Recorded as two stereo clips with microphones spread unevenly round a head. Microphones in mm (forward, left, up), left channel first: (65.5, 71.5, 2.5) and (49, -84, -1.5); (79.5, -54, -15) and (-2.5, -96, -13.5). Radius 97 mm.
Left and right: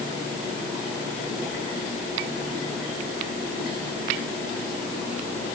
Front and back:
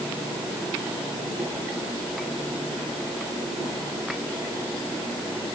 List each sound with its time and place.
Only background noise.